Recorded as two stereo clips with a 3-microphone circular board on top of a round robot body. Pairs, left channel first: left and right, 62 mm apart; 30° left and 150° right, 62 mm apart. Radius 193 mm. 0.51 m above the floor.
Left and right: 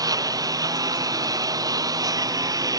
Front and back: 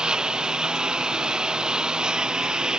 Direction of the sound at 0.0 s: 75° right.